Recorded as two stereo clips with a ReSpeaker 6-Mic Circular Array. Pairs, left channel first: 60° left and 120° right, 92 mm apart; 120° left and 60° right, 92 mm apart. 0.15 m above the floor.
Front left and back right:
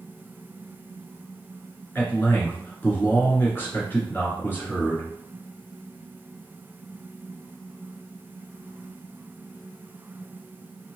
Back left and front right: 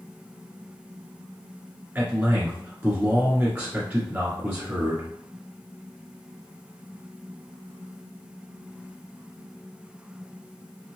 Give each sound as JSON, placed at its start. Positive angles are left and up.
{"t": 1.9, "sound": "a man speaking", "azimuth_deg": 0, "distance_m": 2.0}